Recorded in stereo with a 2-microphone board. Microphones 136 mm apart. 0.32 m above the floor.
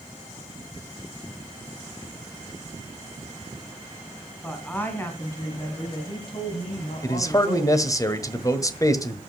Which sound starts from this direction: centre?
A woman speaking, at 4.4 s.